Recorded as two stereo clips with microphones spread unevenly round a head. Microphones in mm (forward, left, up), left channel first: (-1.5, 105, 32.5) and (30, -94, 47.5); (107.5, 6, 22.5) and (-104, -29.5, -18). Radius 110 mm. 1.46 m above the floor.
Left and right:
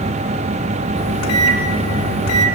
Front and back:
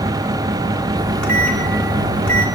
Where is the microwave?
95° left, 3 m.